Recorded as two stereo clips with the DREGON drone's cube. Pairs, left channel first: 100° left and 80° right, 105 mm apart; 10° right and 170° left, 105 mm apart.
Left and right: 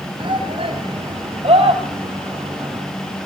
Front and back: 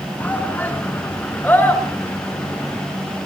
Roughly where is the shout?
Right.